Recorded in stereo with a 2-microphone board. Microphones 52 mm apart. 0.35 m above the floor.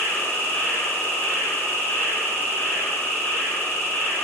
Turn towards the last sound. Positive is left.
turn(degrees=45)  # may be behind; listen again after turning